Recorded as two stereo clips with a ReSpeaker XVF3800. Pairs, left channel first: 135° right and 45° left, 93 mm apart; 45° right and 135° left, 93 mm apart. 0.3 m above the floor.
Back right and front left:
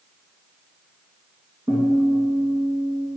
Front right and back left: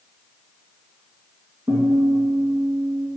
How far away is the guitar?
About 2.5 m.